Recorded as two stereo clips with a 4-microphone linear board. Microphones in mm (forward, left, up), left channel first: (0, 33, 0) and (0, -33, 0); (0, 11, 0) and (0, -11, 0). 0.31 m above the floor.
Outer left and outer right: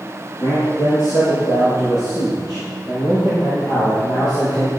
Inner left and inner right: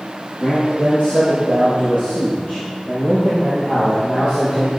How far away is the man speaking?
About 5 m.